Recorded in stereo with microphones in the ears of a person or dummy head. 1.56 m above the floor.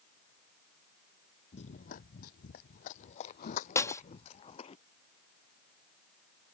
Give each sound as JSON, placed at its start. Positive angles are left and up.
{"t": 1.5, "sound": "running footsteps", "side_deg": 35}
{"t": 3.8, "sound": "breaking glass", "side_deg": 15}